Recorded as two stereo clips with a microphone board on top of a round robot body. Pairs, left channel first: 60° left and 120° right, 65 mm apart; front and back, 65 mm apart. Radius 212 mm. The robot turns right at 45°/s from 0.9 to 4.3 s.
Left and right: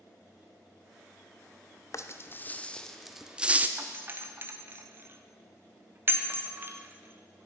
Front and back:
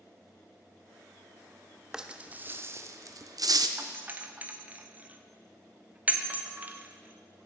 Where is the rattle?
100° left, 0.8 m; by 3.7 s 175° left, 0.8 m.